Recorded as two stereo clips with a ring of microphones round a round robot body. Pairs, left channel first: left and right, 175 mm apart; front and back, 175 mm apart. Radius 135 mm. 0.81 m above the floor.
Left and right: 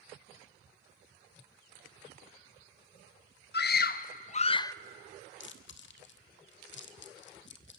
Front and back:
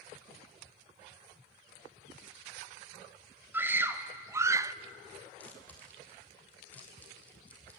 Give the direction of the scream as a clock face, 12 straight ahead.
9 o'clock.